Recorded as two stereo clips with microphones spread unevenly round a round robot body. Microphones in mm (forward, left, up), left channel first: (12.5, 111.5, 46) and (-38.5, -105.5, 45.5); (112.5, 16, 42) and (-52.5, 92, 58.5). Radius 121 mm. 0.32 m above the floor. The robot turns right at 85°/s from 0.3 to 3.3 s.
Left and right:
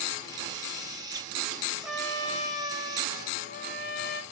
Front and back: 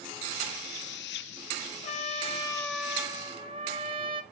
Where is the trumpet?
25° right, 1.1 m; by 4.2 s 100° left, 1.1 m.